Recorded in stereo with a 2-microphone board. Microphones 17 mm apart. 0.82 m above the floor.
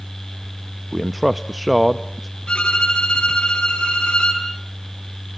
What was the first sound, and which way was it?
A man speaking, centre (ahead or behind).